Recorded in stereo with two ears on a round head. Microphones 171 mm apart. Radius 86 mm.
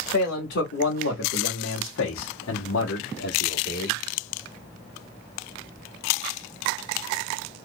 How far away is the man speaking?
About 2 m.